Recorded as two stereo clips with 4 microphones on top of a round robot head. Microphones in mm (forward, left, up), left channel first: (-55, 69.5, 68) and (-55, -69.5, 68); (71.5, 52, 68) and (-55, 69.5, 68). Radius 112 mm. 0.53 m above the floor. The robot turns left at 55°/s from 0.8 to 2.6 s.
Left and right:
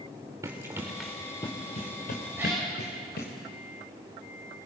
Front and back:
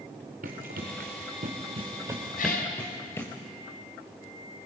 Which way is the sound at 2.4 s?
10° right.